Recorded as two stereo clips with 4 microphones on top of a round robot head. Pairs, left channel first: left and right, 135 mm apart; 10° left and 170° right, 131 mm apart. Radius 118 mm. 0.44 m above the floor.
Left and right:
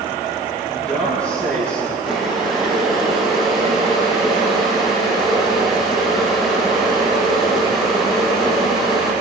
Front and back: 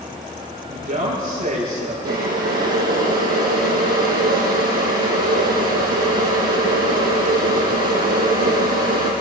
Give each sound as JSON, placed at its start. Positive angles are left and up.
{"t": 0.7, "sound": "a woman speaking", "azimuth_deg": 170, "distance_m": 10.0}
{"t": 2.0, "sound": "boiling", "azimuth_deg": 180, "distance_m": 5.0}